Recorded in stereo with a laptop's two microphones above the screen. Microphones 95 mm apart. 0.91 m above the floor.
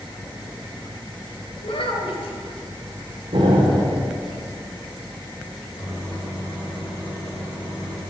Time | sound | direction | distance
1.6 | a child speaking | 75° left (ahead or behind) | 2 m
3.3 | an explosion | 65° right (ahead or behind) | 2.5 m
5.8 | a microwave | 45° left (ahead or behind) | 3.5 m